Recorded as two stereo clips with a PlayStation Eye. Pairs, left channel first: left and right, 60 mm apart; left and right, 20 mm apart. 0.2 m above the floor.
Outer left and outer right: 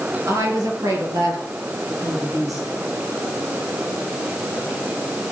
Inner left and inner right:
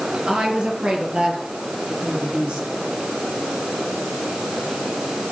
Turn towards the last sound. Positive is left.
turn(degrees=-75)  # may be behind; listen again after turning